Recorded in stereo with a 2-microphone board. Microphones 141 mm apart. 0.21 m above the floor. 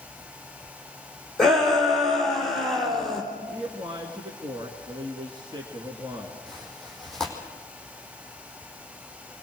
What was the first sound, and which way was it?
A shout, centre (ahead or behind).